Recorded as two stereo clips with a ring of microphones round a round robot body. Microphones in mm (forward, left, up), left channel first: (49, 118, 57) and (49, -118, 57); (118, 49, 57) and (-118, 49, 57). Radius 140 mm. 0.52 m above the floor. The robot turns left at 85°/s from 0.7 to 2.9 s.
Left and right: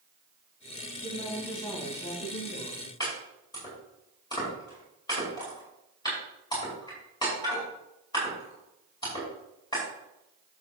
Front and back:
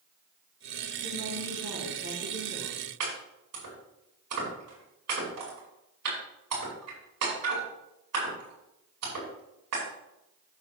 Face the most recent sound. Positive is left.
turn(degrees=165)